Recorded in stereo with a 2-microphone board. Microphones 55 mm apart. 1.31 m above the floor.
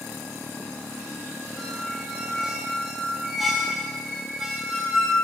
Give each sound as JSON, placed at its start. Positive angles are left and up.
{"t": 1.6, "sound": "a squeak", "side_deg": -5, "distance_m": 2.5}